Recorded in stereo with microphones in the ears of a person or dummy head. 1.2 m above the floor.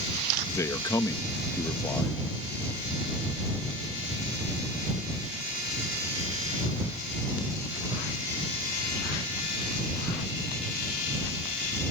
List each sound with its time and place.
0.5 s a man speaking: 15° left (ahead or behind)